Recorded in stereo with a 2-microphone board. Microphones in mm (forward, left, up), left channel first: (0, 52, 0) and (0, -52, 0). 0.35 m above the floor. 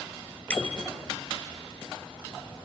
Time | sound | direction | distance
0.5 | a bicycle bell | 10° left (ahead or behind) | 4 m